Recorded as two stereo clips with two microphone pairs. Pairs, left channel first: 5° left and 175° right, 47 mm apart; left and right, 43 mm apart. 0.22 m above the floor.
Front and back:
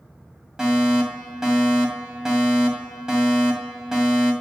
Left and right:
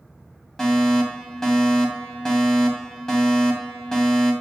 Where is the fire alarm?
135° left, 2 m.